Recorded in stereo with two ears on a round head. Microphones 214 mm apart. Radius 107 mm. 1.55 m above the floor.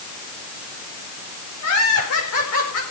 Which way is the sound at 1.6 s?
65° left (ahead or behind).